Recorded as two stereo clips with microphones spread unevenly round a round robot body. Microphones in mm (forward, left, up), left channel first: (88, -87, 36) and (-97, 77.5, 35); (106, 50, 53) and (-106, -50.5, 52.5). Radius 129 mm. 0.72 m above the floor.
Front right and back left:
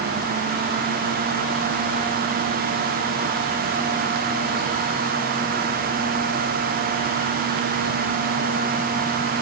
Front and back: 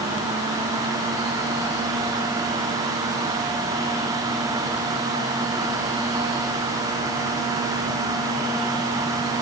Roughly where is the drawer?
I don't hear a drawer.